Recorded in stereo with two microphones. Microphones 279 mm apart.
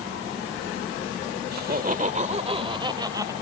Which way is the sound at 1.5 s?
35° right (ahead or behind).